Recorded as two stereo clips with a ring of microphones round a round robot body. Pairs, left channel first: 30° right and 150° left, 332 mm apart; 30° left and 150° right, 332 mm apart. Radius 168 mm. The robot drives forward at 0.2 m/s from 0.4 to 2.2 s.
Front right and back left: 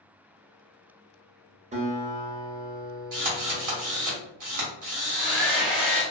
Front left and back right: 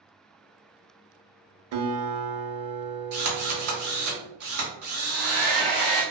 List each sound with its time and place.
1.7 s a guitar: 145° right, 0.6 m; by 4.1 s 150° right, 0.6 m
3.1 s a drill: 170° left, 1.2 m
5.0 s a hair dryer: 120° left, 1.2 m